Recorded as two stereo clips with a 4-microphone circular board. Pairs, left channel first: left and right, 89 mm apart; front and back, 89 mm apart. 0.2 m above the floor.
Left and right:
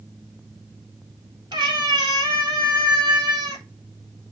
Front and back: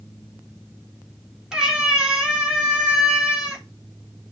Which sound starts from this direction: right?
A cat meowing, at 1.5 s.